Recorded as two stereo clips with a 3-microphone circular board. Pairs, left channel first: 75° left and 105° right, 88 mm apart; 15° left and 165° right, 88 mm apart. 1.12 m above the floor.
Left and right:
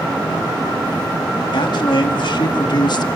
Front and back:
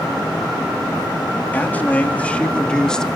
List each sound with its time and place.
1.5 s a man speaking: 85° left, 3 m; by 3.1 s 100° left, 1.8 m